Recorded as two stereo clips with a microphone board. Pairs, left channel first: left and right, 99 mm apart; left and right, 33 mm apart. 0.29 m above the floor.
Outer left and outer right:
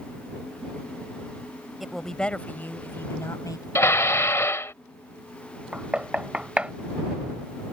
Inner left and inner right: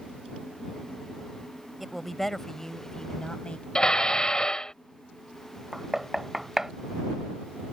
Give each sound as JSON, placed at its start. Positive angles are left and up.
{"t": 1.8, "sound": "a woman speaking", "side_deg": 0}
{"t": 3.8, "sound": "dishes clattering", "side_deg": 25}
{"t": 5.7, "sound": "knocking", "side_deg": -10}